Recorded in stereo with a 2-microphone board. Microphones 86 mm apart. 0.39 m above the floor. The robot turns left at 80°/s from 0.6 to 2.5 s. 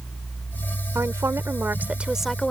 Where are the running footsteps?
I don't hear running footsteps.